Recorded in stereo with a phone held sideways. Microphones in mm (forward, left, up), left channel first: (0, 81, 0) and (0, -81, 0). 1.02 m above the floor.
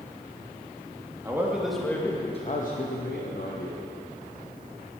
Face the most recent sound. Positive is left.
turn(degrees=80)